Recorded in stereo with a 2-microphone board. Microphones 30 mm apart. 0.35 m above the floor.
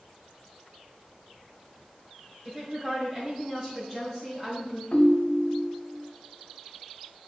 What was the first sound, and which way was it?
A woman speaking, 30° right (ahead or behind).